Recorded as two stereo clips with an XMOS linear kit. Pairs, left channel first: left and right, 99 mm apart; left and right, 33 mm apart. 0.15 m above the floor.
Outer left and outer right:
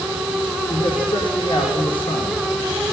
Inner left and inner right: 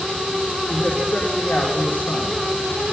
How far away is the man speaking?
About 5.5 m.